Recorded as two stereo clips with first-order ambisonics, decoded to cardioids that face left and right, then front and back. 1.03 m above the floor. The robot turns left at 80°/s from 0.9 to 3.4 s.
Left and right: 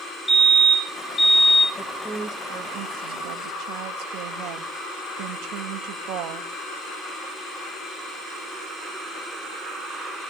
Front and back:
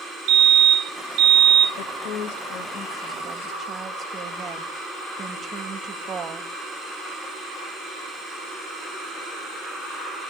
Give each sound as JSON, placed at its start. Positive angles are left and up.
{"t": 0.3, "sound": "a fire alarm", "azimuth_deg": -175, "distance_m": 2.5}
{"t": 1.8, "sound": "a woman speaking", "azimuth_deg": 20, "distance_m": 1.3}